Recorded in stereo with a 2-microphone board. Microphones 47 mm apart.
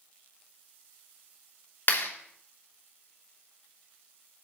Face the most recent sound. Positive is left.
turn(degrees=50)  # may be behind; listen again after turning